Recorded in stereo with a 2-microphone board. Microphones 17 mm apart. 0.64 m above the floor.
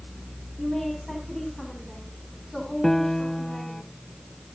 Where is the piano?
15° left (ahead or behind), 0.6 m.